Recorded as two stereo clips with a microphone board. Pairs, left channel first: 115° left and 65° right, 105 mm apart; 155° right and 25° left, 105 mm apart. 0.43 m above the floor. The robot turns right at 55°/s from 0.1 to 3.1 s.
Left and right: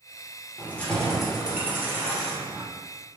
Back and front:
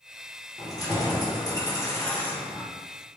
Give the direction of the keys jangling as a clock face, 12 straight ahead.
6 o'clock.